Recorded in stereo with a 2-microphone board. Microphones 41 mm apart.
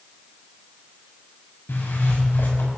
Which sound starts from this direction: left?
A zipper, at 1.7 s.